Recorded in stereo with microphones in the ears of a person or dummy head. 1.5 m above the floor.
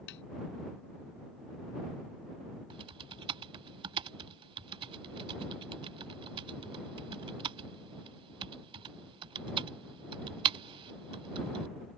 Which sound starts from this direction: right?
Typing on a keyboard, at 2.7 s.